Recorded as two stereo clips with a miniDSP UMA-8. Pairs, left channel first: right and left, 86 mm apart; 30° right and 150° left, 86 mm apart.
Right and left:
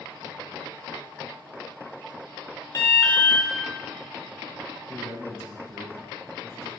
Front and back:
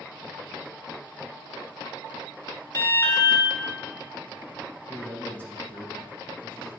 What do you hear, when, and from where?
2.7 s an alarm: 65° right, 1.0 m
4.9 s a man speaking: 85° right, 1.2 m